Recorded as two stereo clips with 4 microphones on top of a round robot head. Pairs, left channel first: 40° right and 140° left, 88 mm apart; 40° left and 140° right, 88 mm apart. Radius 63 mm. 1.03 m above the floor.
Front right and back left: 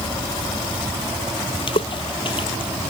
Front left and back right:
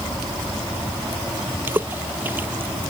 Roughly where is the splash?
Right.